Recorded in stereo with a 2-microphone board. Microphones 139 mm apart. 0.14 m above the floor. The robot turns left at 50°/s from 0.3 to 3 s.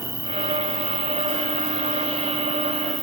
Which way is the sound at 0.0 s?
125° left.